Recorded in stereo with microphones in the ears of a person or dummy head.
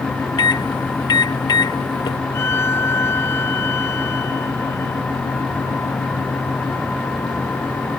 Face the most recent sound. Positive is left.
turn(degrees=15)  # may be behind; listen again after turning